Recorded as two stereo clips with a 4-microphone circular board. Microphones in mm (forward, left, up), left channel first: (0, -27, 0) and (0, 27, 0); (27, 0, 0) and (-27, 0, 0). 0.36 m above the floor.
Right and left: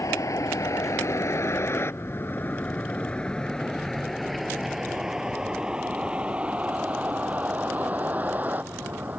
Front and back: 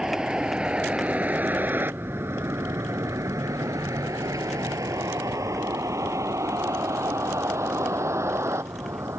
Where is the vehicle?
100° right; by 9.2 s 145° left.